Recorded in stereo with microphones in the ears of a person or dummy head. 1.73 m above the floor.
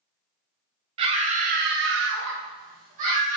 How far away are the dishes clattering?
I don't hear dishes clattering.